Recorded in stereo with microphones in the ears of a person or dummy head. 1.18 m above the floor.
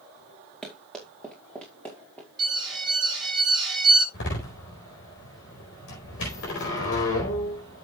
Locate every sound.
0.6 s running footsteps: centre (ahead or behind), 4.5 m; by 2.3 s 10° left (ahead or behind), 5 m
2.4 s an alarm: centre (ahead or behind), 7.5 m
4.1 s a door slam: 60° left (ahead or behind), 4.5 m